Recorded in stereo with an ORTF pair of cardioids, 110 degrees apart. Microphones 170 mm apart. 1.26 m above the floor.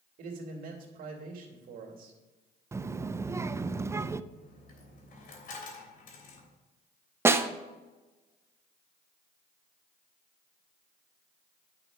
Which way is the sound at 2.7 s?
15° right.